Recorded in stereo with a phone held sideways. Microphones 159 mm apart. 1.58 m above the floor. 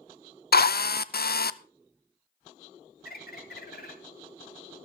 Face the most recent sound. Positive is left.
turn(degrees=75)  # may be behind; listen again after turning